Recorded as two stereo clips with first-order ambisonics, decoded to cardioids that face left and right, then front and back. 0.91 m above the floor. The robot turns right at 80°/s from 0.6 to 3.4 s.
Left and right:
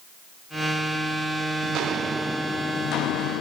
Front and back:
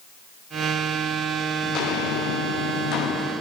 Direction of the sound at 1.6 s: 55° right.